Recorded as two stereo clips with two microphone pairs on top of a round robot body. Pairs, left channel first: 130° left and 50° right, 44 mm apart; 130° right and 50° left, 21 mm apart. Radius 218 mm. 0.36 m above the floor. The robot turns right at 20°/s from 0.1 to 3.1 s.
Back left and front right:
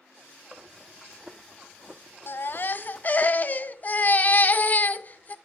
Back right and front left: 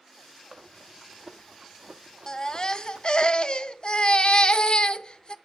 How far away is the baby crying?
About 0.6 m.